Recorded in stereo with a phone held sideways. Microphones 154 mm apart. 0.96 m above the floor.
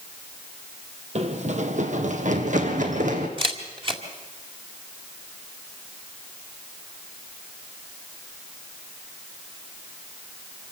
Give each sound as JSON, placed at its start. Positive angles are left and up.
{"t": 1.1, "sound": "running footsteps", "side_deg": -50, "distance_m": 1.3}
{"t": 3.4, "sound": "a camera shutter", "side_deg": -35, "distance_m": 2.0}